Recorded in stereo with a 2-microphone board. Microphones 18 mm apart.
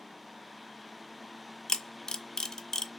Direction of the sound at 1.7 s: 35° left (ahead or behind).